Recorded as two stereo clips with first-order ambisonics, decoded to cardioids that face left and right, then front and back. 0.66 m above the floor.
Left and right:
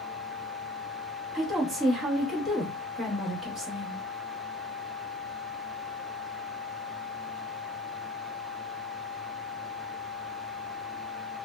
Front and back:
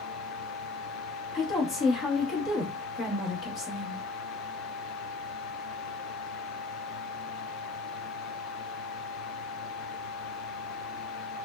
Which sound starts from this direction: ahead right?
A woman speaking, at 1.3 s.